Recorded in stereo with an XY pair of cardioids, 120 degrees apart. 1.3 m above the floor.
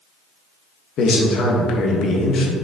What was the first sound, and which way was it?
A man speaking, 60° left.